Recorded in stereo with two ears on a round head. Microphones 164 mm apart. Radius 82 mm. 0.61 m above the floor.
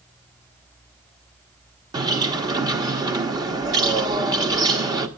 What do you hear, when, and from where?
1.9 s a bird: 20° right (ahead or behind), 1.1 m